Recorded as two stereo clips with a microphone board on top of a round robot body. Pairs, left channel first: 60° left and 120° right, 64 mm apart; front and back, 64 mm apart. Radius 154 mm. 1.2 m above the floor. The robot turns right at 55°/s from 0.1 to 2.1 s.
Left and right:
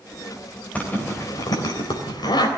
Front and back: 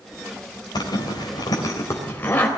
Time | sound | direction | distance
0.8 | a zipper | 10° right | 3.5 m